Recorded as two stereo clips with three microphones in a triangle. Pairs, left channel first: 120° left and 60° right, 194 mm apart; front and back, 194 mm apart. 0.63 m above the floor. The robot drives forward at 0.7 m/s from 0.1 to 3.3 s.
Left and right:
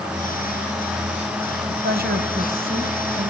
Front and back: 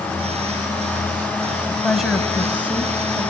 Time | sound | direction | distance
1.7 | a woman speaking | 85° right | 3.5 m